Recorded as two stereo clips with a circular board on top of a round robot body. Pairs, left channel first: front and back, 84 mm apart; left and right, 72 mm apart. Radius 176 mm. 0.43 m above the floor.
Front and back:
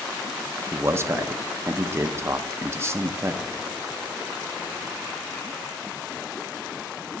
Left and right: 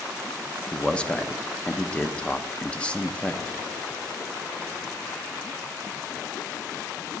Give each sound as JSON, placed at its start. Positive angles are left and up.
{"t": 0.7, "sound": "a man speaking", "azimuth_deg": 155, "distance_m": 0.8}